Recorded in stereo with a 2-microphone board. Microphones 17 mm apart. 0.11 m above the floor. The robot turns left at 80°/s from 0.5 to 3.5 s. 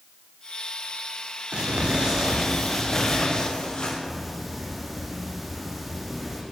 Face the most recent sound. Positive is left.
turn(degrees=-5)  # may be behind; listen again after turning